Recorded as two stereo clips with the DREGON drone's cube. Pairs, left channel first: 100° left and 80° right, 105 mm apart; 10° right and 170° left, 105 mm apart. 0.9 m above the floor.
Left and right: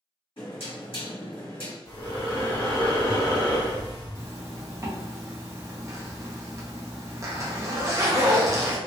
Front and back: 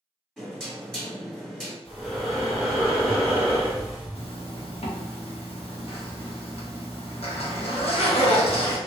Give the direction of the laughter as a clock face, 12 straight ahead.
No laughter in this recording.